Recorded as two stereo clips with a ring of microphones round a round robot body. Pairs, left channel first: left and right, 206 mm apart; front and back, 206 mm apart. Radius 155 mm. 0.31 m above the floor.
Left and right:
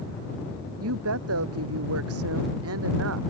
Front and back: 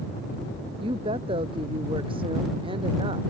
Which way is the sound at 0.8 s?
105° right.